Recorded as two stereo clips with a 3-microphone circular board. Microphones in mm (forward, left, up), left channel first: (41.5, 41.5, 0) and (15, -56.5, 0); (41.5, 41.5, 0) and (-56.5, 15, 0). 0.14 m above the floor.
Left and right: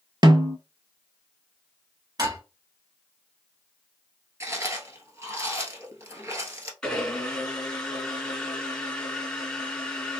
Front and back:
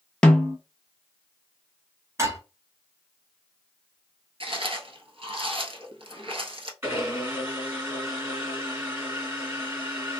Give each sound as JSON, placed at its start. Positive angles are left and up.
{"t": 0.2, "sound": "a snare drum", "azimuth_deg": -65, "distance_m": 0.5}
{"t": 2.2, "sound": "dishes clattering", "azimuth_deg": -120, "distance_m": 1.3}
{"t": 4.4, "sound": "chewing", "azimuth_deg": -165, "distance_m": 0.9}
{"t": 6.8, "sound": "a blender", "azimuth_deg": 150, "distance_m": 1.7}